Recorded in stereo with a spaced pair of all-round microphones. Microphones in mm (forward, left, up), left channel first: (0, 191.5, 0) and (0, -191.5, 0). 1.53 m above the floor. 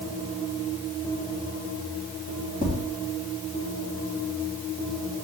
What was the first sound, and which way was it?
Tapping, 10° right (ahead or behind).